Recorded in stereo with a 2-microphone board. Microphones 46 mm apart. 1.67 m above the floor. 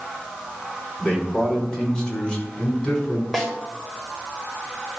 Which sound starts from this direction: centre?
A snare drum, at 3.3 s.